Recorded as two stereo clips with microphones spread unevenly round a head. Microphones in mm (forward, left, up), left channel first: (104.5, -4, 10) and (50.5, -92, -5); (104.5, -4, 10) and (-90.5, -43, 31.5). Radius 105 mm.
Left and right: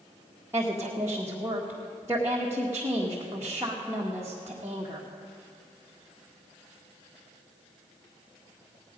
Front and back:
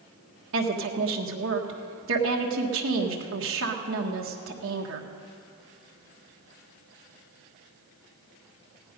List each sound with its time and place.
0.5 s a woman speaking: 160° left, 1.4 m